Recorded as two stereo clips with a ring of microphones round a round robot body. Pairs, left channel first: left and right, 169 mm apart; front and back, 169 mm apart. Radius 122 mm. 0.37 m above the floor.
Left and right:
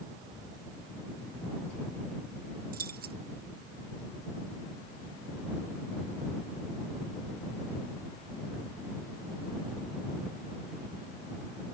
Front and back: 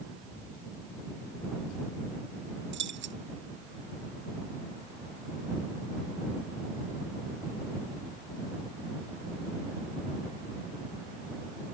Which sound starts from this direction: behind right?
Keys jangling, at 2.7 s.